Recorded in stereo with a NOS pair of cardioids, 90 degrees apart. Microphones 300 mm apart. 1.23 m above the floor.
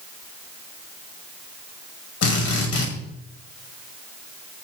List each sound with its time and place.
2.2 s a drill: 55° left, 8 m